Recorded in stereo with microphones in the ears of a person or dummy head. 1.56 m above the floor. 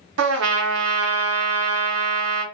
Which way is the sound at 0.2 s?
70° right (ahead or behind).